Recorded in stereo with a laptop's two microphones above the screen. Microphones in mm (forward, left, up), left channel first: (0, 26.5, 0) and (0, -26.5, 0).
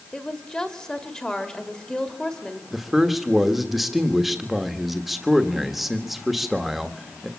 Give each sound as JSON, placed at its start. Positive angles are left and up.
{"t": 0.1, "sound": "a woman speaking", "side_deg": 15, "distance_m": 1.8}
{"t": 2.7, "sound": "a man speaking", "side_deg": -5, "distance_m": 1.4}